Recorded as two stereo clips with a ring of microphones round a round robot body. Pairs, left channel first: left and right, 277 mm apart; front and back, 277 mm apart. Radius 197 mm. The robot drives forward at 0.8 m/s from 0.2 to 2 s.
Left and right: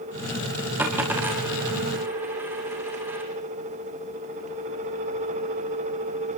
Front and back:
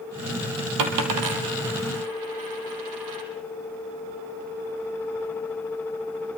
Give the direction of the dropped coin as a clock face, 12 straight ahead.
6 o'clock.